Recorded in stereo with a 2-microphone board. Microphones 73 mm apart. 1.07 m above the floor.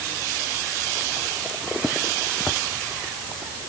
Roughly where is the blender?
No blender in this recording.